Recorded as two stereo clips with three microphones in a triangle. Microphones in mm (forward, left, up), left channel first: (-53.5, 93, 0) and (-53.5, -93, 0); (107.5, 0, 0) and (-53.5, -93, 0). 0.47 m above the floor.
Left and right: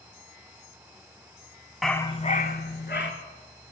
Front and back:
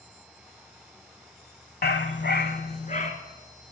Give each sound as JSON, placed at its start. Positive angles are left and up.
{"t": 1.8, "sound": "a dog barking", "azimuth_deg": 0, "distance_m": 0.8}